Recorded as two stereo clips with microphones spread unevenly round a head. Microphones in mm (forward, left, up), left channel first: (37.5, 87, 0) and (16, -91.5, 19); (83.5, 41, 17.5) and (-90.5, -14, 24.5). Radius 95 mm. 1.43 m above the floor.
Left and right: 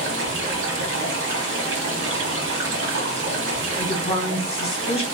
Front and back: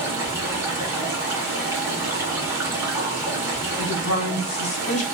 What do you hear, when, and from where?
0.0 s running water: 85° right, 1.0 m
3.8 s a woman speaking: 25° left, 1.2 m